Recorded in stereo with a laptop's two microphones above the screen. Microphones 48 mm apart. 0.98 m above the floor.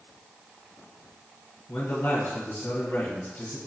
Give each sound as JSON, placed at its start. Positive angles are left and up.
{"t": 1.7, "sound": "a man speaking", "side_deg": 45, "distance_m": 1.2}